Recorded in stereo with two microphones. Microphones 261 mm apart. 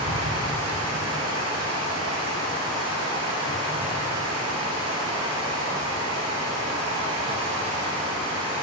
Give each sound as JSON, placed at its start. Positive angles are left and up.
{"t": 0.0, "sound": "running water", "side_deg": -75, "distance_m": 2.0}